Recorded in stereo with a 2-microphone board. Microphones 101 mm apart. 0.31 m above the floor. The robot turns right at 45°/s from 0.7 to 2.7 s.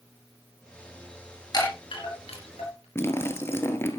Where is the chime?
40° left (ahead or behind), 4 m; by 2.9 s 80° left, 4 m.